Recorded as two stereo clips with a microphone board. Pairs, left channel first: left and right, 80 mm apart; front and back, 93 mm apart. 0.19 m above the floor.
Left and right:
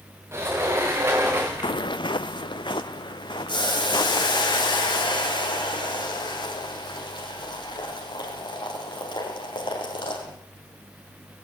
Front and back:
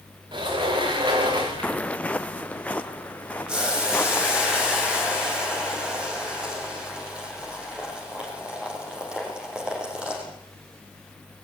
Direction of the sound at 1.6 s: 75° left.